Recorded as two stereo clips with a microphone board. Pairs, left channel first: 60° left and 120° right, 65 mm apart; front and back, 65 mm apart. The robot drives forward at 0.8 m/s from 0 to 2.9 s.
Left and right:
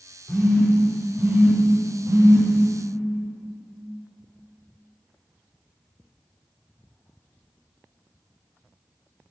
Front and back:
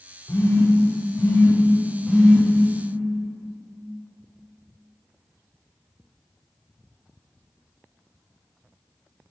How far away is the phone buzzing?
About 1.8 m.